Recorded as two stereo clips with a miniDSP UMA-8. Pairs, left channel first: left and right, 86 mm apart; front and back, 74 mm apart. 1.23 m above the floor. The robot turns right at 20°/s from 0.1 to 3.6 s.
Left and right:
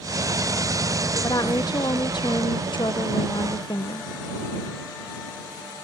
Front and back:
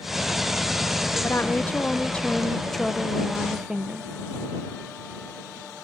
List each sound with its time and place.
1.2 s a woman speaking: 55° left; by 4.1 s 100° left